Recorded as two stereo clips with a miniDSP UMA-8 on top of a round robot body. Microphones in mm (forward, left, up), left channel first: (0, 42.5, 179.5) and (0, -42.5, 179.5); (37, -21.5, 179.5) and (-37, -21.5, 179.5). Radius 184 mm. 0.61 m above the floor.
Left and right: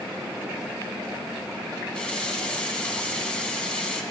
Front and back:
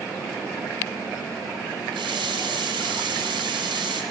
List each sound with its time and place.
1.9 s a running tap: 170° left, 2.5 m